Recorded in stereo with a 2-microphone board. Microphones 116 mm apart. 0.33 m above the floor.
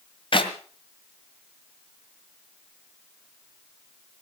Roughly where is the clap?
Left.